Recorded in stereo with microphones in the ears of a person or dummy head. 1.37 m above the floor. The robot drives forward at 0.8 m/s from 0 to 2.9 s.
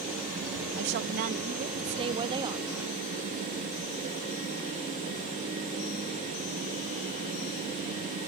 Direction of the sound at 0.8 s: 60° right (ahead or behind).